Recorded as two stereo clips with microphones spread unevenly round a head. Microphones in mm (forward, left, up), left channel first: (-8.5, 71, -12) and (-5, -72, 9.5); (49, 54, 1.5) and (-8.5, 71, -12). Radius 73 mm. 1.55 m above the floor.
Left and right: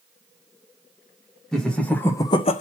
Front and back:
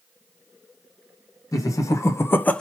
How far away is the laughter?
About 1.5 m.